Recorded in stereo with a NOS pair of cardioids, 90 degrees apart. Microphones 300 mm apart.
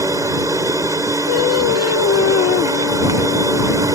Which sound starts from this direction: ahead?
A machine running, at 0.0 s.